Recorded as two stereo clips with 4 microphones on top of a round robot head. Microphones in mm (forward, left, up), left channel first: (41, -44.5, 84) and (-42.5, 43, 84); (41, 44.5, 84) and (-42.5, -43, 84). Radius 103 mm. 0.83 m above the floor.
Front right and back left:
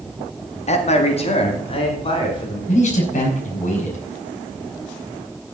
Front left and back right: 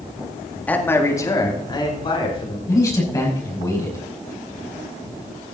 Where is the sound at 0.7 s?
30° right, 2 m; by 2.6 s straight ahead, 3.5 m.